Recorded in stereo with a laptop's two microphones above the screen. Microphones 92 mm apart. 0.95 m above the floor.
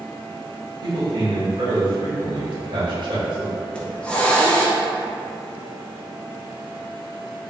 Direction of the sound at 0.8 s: 60° right (ahead or behind).